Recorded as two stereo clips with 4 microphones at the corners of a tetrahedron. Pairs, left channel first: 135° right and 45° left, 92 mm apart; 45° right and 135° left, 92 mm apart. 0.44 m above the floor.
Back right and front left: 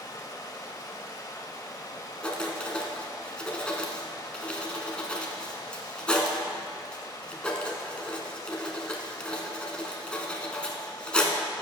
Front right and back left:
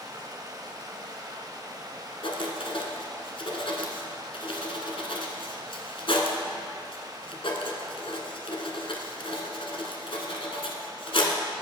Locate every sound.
0.0 s running water: straight behind, 1.1 m
2.2 s writing: 55° right, 1.2 m